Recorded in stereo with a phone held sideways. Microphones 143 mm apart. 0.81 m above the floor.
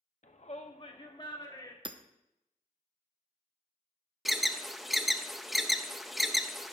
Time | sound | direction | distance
0.2 | a shout | 60° left (ahead or behind) | 1.0 m
1.9 | hammering | 35° right (ahead or behind) | 0.6 m
4.2 | an alarm | centre (ahead or behind) | 0.5 m